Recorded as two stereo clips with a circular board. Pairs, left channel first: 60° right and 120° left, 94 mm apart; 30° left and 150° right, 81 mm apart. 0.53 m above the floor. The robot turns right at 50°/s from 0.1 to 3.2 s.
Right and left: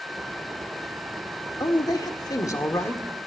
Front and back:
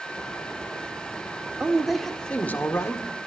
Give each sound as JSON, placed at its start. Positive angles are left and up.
{"t": 1.6, "sound": "a man speaking", "azimuth_deg": -80, "distance_m": 1.6}